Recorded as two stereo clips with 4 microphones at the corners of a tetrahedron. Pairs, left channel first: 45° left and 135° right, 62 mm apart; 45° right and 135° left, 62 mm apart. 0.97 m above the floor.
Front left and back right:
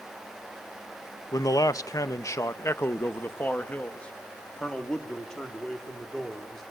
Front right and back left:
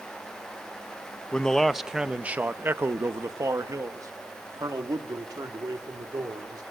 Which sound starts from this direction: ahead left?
A man speaking, at 1.3 s.